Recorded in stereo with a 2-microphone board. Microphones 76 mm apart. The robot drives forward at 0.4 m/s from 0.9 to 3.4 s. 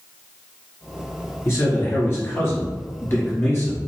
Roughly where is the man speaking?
Left.